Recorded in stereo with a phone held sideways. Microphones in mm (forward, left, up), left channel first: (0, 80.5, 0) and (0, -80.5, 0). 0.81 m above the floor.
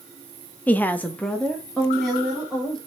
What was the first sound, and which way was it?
A woman speaking, 10° left (ahead or behind).